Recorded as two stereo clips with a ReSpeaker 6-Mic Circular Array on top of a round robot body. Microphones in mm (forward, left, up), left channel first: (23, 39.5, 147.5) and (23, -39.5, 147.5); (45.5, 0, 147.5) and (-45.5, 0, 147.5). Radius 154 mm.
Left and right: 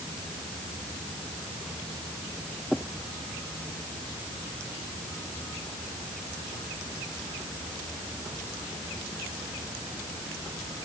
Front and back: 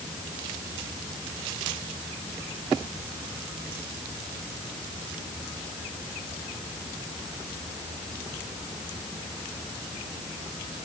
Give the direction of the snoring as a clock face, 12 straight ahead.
I don't hear snoring.